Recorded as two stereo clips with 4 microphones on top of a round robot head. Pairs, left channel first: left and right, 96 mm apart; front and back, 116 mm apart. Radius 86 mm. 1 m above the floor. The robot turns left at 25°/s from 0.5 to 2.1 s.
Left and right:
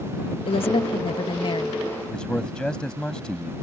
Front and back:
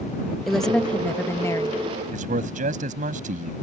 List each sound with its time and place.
0.5 s a woman speaking: 90° left; by 1.8 s 55° left
2.1 s a man speaking: 175° left